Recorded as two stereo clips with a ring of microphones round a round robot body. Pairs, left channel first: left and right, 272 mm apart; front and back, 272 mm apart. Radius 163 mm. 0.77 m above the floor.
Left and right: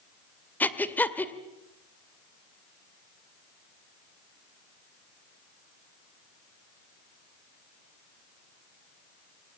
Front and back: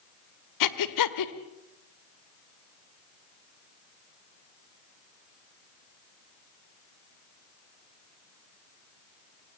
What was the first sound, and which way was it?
Breathing, 5° left.